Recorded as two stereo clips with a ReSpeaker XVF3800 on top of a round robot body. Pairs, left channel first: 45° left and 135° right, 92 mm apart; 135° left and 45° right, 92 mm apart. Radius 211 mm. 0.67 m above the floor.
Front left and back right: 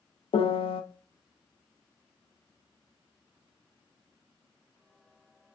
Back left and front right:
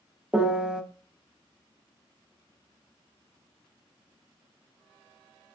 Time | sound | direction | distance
0.3 | a piano | 35° left | 0.7 m